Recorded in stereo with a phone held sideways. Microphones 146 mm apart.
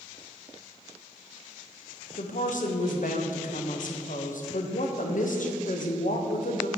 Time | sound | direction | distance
2.2 | a woman speaking | 65° left (ahead or behind) | 0.8 m